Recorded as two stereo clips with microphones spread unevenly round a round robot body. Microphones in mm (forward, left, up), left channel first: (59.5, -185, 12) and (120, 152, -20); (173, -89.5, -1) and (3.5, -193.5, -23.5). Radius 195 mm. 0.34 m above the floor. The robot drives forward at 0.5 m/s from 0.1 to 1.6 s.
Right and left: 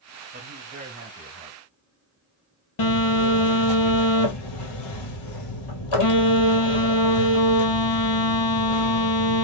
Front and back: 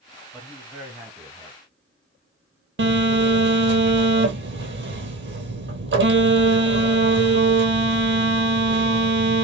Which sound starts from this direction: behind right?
A phone buzzing, at 2.8 s.